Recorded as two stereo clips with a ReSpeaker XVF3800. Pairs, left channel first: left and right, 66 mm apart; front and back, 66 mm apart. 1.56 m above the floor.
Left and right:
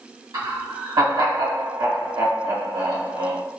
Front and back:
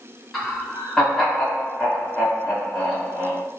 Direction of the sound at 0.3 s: 90° right.